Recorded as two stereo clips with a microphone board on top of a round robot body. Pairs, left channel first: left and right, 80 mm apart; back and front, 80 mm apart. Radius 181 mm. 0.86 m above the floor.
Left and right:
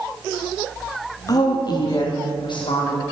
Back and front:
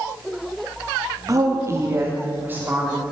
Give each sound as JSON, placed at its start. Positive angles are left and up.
{"t": 1.3, "sound": "a woman speaking", "azimuth_deg": 45, "distance_m": 2.5}